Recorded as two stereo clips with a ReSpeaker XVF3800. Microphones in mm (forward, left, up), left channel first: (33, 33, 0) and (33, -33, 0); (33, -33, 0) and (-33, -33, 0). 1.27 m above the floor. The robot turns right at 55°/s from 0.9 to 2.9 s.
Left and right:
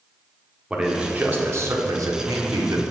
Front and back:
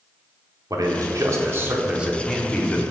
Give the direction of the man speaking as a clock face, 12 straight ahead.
6 o'clock.